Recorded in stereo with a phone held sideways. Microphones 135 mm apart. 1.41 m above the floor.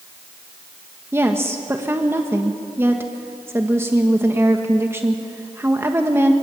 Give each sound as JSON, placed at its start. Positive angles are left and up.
{"t": 1.1, "sound": "a woman speaking", "side_deg": -20, "distance_m": 1.3}